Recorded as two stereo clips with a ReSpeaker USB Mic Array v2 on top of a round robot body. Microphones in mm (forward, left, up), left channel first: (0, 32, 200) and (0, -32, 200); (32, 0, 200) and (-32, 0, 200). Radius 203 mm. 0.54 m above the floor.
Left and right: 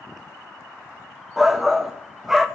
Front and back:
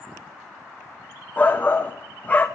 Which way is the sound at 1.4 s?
15° right.